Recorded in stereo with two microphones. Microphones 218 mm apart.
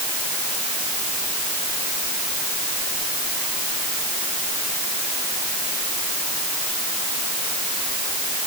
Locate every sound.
Only background noise.